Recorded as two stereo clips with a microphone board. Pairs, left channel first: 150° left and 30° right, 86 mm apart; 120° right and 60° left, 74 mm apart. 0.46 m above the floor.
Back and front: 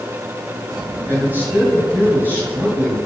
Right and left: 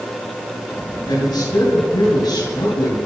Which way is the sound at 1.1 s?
95° right.